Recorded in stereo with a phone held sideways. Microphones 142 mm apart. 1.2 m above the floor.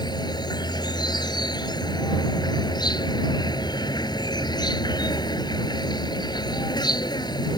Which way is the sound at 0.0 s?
30° left (ahead or behind).